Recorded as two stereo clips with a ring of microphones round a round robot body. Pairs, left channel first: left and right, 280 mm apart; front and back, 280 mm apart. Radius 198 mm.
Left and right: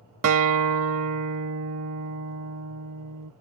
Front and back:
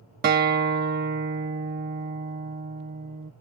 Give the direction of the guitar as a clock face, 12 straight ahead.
4 o'clock.